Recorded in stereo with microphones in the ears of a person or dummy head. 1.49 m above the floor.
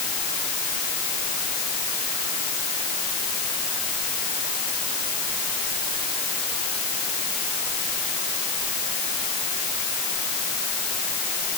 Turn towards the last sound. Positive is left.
No sound to turn to.